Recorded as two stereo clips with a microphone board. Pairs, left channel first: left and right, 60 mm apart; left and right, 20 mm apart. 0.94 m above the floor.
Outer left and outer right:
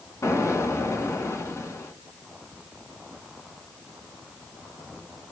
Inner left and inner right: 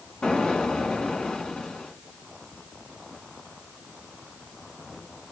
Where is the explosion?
55° left (ahead or behind), 1.7 m.